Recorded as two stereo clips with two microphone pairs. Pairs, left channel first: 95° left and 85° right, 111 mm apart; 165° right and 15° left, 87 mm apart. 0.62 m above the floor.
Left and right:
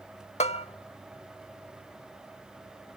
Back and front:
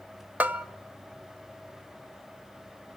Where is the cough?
I don't hear a cough.